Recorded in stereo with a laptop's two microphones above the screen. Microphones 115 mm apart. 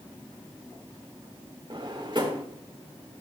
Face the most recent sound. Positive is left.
turn(degrees=-45)  # may be behind; listen again after turning